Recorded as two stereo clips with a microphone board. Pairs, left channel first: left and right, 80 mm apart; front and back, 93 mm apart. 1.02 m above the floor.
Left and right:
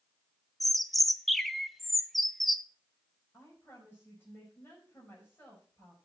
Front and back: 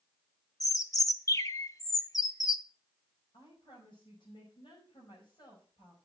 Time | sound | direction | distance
0.6 | a bird | straight ahead | 0.7 m
3.3 | a woman speaking | 20° left | 5 m